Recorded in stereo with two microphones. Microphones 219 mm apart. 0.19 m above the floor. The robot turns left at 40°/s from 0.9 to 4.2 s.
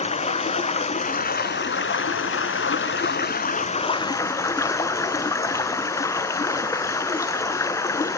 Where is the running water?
145° left, 0.8 m; by 8.2 s 15° left, 0.8 m.